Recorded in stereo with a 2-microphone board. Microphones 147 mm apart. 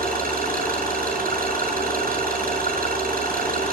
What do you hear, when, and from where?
0.0 s an engine running: 85° right, 7.5 m